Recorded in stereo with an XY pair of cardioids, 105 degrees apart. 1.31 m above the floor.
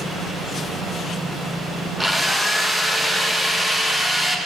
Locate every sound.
2.0 s a drill: straight ahead, 1.4 m